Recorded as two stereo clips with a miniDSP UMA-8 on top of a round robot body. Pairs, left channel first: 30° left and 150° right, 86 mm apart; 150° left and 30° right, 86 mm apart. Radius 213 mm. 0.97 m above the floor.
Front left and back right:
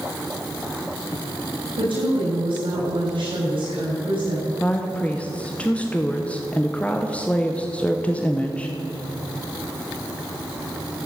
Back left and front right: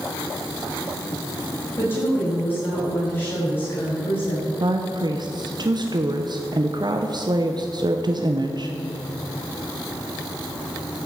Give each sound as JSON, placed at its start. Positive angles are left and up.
{"t": 1.8, "sound": "a woman speaking", "azimuth_deg": -145, "distance_m": 7.0}
{"t": 4.6, "sound": "a woman speaking", "azimuth_deg": -40, "distance_m": 1.2}